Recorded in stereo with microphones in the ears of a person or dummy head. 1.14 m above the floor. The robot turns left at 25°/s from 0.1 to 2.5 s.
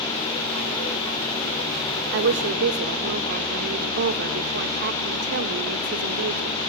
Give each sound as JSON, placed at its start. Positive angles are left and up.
{"t": 2.1, "sound": "a woman speaking", "side_deg": -65, "distance_m": 1.2}